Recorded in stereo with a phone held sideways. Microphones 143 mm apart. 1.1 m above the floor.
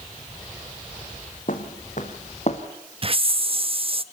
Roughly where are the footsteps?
Left.